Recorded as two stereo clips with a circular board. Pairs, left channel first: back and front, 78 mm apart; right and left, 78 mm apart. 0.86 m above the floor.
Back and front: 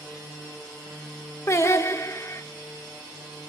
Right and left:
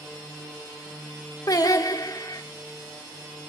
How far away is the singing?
About 0.9 m.